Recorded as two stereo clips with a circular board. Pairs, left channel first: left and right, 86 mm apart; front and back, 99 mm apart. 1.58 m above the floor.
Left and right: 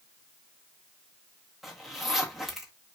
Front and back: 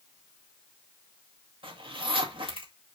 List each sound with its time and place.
1.6 s a zipper: straight behind, 1.8 m